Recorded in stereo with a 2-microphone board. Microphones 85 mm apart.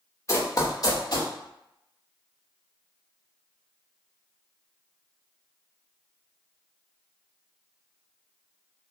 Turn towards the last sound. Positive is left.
turn(degrees=55)  # may be behind; listen again after turning